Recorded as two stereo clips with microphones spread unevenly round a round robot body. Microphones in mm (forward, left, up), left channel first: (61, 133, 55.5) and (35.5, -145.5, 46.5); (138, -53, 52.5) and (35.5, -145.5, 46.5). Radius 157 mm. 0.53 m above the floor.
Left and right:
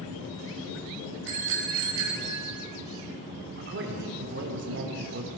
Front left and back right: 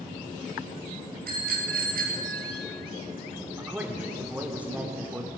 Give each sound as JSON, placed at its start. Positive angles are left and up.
{"t": 1.3, "sound": "a bicycle bell", "azimuth_deg": -145, "distance_m": 3.5}
{"t": 3.6, "sound": "a man speaking", "azimuth_deg": -60, "distance_m": 2.0}